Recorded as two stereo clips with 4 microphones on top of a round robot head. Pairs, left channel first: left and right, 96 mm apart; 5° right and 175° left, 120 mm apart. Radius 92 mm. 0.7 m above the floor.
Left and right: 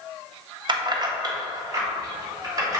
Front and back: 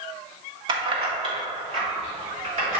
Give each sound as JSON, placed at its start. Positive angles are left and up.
{"t": 0.7, "sound": "keys jangling", "azimuth_deg": -130, "distance_m": 0.8}